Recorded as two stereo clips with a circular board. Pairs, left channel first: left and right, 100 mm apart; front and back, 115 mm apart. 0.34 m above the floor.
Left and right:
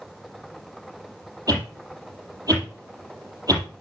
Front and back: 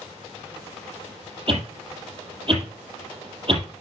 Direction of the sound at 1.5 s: 145° right.